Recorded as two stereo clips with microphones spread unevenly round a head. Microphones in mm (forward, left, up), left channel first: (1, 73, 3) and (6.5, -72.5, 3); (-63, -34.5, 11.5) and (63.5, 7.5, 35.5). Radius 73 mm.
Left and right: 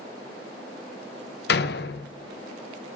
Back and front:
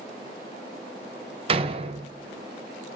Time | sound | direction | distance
1.5 | a door slam | 75° left | 0.9 m